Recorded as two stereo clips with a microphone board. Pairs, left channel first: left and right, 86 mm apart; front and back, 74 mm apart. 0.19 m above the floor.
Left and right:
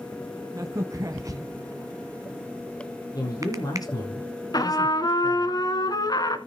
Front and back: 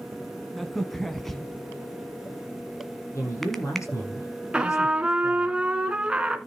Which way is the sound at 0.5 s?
85° right.